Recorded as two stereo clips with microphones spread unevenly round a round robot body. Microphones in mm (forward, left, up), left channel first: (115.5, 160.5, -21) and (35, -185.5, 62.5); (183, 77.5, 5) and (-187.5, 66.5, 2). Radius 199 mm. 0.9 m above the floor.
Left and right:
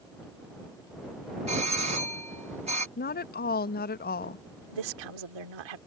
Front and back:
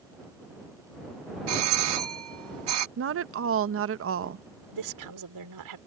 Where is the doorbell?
Straight behind.